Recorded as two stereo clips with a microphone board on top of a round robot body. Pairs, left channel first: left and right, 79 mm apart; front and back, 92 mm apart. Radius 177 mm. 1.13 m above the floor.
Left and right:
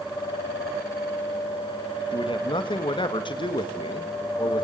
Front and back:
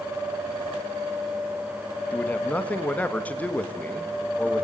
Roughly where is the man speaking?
Left.